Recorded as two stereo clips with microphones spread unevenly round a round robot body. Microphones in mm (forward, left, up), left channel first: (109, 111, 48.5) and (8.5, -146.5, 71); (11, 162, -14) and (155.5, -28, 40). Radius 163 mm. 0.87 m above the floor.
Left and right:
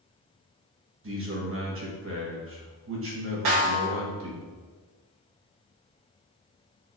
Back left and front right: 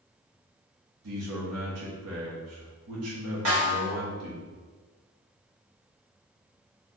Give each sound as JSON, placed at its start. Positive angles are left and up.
{"t": 1.0, "sound": "a man speaking", "azimuth_deg": -80, "distance_m": 1.4}
{"t": 3.5, "sound": "a snare drum", "azimuth_deg": -90, "distance_m": 1.6}